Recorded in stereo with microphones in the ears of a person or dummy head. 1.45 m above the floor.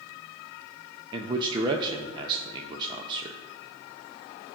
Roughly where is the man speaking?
Right.